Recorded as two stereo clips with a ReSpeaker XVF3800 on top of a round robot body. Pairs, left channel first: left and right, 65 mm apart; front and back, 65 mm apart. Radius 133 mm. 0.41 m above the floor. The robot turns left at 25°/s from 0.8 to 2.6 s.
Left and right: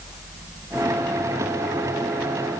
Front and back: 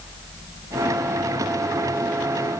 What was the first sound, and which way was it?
Only background noise.